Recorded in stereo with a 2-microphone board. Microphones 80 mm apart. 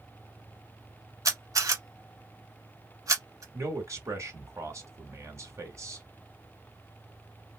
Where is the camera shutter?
45° right (ahead or behind), 1.1 m.